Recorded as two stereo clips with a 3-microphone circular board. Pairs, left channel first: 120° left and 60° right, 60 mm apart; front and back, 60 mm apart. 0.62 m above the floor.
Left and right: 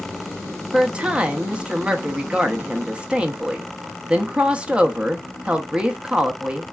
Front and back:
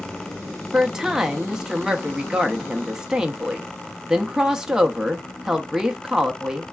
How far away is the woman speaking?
About 0.6 m.